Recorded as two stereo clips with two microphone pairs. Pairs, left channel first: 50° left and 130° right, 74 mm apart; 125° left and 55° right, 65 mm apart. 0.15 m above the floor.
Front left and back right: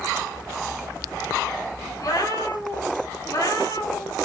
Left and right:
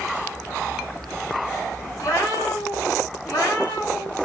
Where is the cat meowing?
90° left, 6 m; by 4.2 s 85° left, 5 m.